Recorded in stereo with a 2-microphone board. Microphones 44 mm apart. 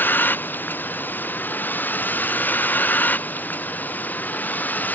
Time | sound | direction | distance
0.0 | a vehicle | 45° left (ahead or behind) | ?